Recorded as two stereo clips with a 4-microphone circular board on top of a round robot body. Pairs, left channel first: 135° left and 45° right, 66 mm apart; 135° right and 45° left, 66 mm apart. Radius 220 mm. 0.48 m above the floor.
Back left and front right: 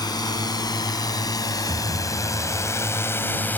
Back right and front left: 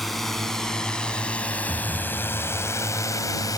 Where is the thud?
20° right.